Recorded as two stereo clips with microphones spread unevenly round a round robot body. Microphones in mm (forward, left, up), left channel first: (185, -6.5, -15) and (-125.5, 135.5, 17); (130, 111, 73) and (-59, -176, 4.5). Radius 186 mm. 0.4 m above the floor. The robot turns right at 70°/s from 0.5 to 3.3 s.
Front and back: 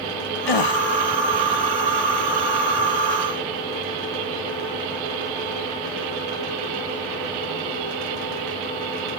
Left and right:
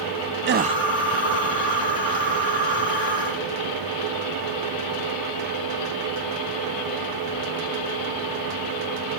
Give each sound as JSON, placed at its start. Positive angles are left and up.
{"t": 0.5, "sound": "a gasp", "azimuth_deg": -60}